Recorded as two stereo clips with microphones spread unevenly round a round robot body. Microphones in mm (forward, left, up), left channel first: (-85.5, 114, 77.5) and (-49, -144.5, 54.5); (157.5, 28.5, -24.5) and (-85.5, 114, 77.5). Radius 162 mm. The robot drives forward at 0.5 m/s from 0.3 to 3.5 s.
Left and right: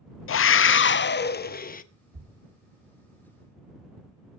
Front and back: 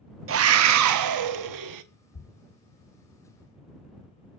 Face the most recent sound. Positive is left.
turn(degrees=-100)